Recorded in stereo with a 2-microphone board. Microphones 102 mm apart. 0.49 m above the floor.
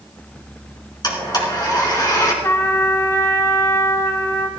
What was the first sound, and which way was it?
A blender, 45° left (ahead or behind).